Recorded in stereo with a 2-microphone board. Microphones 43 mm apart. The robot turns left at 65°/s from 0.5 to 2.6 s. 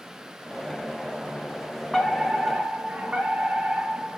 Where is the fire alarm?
20° left, 5 m; by 4.2 s 25° right, 5 m.